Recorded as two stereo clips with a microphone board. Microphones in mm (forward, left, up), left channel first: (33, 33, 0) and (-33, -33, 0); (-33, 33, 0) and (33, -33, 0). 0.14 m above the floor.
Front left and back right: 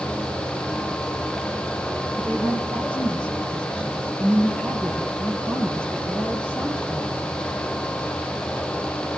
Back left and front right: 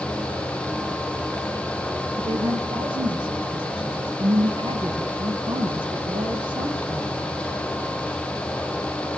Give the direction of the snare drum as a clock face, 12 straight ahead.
I don't hear a snare drum.